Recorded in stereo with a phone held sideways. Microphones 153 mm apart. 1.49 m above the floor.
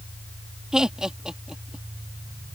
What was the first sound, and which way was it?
Laughter, 5° right (ahead or behind).